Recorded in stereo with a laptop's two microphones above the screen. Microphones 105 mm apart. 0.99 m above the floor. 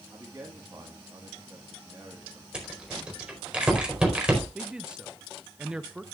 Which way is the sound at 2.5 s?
10° right (ahead or behind).